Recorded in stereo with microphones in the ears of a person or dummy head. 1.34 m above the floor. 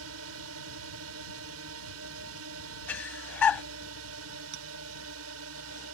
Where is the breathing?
15° left (ahead or behind).